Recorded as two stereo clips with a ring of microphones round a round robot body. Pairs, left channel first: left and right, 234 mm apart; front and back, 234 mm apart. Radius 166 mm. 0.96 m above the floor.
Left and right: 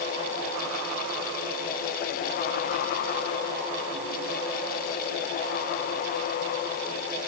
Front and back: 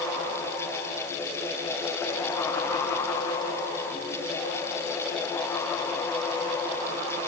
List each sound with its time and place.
Only background noise.